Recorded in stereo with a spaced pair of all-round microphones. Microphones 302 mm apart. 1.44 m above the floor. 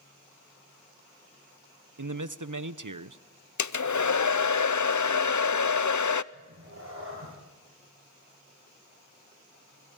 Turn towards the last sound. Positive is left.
turn(degrees=-45)  # may be behind; listen again after turning